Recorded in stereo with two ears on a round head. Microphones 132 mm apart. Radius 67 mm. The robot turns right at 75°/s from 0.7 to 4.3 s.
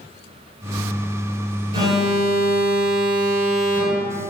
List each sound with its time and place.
1.7 s an alarm: 140° right, 1.8 m; by 4.3 s 50° left, 1.8 m